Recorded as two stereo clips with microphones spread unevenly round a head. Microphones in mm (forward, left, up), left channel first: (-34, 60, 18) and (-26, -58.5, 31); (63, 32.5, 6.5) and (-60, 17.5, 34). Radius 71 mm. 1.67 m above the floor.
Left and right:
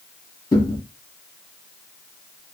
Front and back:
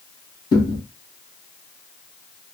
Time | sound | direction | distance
0.5 | a thud | 50° left | 1.2 m